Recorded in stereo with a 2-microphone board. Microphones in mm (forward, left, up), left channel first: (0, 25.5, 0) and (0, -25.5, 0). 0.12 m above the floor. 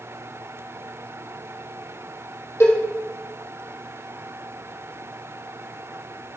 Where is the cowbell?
60° left (ahead or behind), 3 m.